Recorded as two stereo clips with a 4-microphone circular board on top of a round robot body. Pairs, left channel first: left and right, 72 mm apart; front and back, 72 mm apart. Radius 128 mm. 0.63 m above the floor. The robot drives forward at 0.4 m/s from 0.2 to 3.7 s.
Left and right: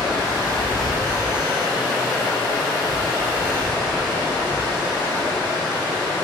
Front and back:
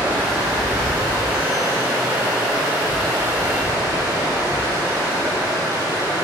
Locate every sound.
0.0 s running water: 175° left, 1.9 m; by 6.2 s straight behind, 3.5 m